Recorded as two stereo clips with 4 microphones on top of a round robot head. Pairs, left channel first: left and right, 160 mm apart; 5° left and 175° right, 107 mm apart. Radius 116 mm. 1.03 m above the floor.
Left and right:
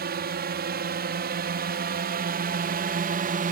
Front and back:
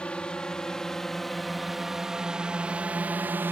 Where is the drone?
80° right; by 3.5 s 105° right.